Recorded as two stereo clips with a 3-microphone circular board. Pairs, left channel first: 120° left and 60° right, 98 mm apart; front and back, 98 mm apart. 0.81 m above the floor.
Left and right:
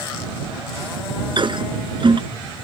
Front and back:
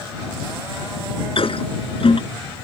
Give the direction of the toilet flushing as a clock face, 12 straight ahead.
1 o'clock.